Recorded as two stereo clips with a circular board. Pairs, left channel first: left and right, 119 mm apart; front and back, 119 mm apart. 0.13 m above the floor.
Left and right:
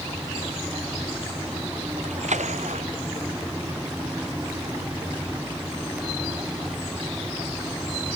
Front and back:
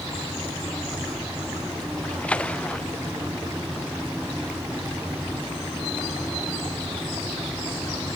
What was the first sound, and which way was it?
A splash, 80° right.